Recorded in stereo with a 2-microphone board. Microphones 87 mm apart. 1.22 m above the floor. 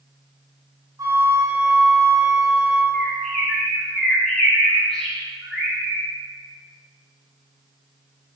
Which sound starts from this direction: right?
A flute, at 1.0 s.